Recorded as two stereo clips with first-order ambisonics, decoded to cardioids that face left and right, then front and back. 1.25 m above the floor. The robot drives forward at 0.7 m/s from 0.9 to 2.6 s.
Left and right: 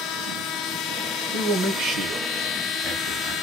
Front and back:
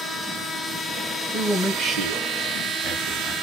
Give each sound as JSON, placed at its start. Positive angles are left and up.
{"t": 1.3, "sound": "a man speaking", "azimuth_deg": -85, "distance_m": 0.9}